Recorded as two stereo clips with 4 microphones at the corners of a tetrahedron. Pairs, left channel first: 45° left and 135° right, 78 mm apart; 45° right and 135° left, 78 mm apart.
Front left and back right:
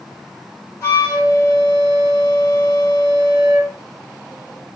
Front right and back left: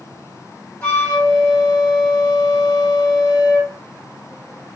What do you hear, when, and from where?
0.8 s a flute: 10° left, 1.7 m